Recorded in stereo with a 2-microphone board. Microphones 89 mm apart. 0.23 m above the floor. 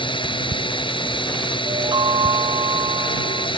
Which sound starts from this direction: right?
A chime, at 1.6 s.